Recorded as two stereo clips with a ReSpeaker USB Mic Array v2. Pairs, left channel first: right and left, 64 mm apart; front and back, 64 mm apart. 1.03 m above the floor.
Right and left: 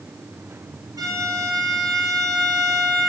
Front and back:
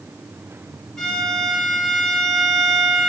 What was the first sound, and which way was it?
A violin, 80° left.